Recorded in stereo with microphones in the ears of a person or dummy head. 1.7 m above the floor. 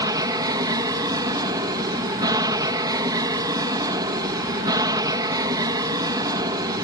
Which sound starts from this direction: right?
An aircraft, at 0.0 s.